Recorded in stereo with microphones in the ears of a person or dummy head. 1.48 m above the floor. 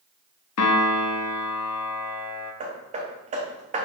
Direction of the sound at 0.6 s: 85° left.